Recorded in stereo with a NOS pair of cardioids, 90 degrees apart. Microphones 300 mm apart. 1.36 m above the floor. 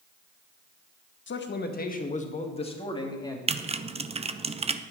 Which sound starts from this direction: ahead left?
A man speaking, at 1.3 s.